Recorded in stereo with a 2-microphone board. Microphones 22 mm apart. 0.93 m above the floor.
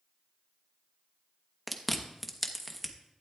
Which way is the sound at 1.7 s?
5° left (ahead or behind).